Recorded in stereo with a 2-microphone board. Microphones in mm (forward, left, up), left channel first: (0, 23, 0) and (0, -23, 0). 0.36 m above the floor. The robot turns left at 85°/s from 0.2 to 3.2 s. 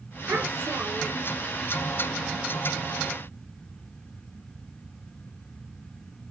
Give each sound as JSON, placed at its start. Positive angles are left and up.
{"t": 0.3, "sound": "a child speaking", "azimuth_deg": -60, "distance_m": 4.0}